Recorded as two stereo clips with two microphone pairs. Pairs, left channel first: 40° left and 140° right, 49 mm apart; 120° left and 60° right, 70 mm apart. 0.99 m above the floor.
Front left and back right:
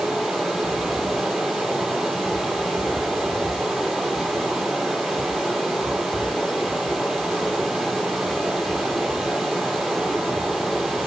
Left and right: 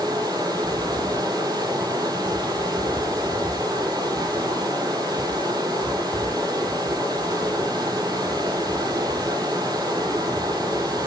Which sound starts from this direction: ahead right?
Running water, at 0.0 s.